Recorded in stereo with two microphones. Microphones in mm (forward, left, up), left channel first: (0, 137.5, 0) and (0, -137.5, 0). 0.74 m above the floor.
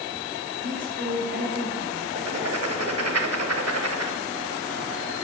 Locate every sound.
0.6 s a woman speaking: 45° right (ahead or behind), 3.5 m
2.1 s writing: 60° right (ahead or behind), 1.0 m